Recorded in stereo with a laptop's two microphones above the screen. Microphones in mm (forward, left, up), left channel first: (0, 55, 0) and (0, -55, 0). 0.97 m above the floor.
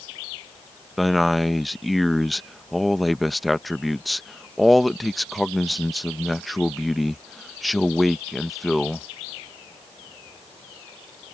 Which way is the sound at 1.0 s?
Centre (ahead or behind).